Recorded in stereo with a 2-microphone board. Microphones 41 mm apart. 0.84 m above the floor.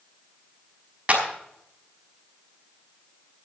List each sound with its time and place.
1.1 s a clap: 30° right (ahead or behind), 5 m